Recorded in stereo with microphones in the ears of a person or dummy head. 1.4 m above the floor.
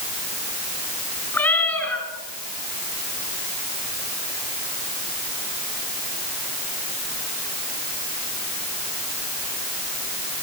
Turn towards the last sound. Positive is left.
turn(degrees=10)  # may be behind; listen again after turning